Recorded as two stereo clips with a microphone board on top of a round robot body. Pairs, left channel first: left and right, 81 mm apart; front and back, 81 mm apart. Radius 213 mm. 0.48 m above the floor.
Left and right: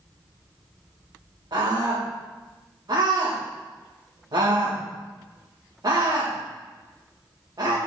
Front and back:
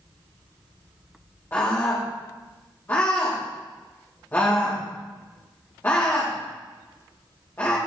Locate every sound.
1.5 s a scream: 60° right, 3 m